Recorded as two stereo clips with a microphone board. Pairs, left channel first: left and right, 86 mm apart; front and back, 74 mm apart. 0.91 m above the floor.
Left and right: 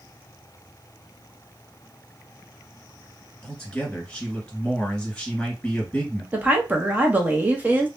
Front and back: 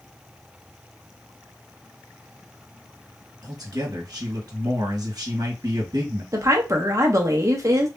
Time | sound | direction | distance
3.4 | a man speaking | 165° left | 1.5 m
6.3 | a woman speaking | 155° right | 0.8 m